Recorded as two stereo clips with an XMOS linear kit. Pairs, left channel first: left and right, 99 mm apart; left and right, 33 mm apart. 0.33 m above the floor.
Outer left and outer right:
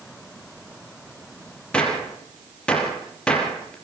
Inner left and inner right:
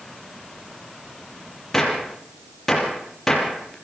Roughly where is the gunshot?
Centre.